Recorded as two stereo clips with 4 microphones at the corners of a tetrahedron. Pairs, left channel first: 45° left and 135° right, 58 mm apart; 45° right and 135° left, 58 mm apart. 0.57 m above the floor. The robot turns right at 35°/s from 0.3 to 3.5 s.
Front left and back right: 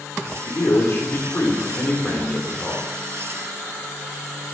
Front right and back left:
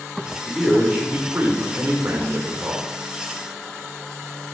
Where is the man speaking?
45° left, 1.9 m; by 2.8 s 130° left, 1.9 m.